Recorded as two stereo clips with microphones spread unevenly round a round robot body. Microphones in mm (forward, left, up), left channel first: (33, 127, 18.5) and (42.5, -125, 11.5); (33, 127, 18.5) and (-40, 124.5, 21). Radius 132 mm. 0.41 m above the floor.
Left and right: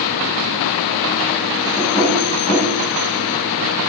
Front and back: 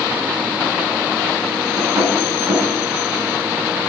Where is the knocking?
165° left, 2.5 m.